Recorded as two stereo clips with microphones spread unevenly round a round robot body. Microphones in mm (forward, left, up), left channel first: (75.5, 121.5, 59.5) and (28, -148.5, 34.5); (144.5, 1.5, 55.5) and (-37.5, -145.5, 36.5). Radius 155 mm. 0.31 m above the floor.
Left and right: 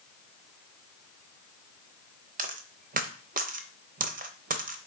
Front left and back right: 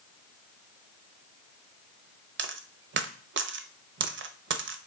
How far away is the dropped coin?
About 0.8 m.